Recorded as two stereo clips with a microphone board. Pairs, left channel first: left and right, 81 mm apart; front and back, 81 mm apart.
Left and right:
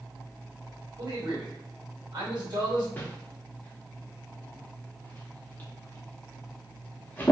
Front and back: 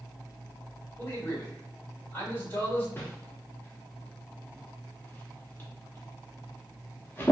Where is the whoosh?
35° left, 0.8 m.